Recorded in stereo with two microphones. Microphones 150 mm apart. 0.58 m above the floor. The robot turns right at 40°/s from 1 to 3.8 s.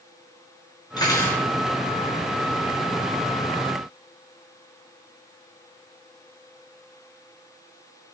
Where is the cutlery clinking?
25° left (ahead or behind), 5.5 m; by 1.4 s 10° left (ahead or behind), 5.5 m.